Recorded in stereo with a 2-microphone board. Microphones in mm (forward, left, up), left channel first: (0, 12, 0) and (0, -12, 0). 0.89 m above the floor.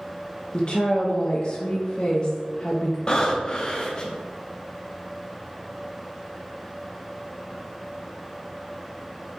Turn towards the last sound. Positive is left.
turn(degrees=30)  # may be behind; listen again after turning